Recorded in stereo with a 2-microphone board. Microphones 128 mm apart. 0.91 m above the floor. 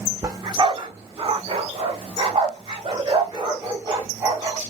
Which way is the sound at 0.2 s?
30° right (ahead or behind).